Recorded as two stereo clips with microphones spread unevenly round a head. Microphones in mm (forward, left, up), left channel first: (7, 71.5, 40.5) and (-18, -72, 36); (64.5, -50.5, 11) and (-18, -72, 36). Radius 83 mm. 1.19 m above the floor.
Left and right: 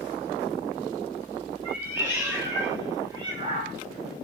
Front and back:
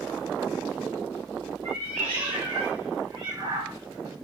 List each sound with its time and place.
1.6 s a cat meowing: straight behind, 1.9 m; by 3.8 s 135° right, 0.6 m